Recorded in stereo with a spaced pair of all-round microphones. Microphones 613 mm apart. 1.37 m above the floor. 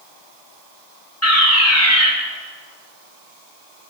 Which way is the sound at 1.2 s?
25° left (ahead or behind).